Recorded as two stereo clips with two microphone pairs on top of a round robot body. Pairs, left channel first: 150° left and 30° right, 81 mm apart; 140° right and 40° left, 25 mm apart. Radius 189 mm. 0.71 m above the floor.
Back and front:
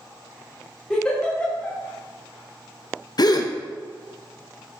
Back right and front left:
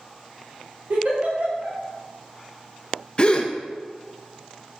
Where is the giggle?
75° left, 2.5 m.